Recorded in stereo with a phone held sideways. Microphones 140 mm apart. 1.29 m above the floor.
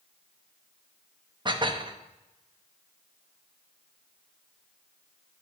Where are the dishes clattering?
35° right (ahead or behind), 0.8 m.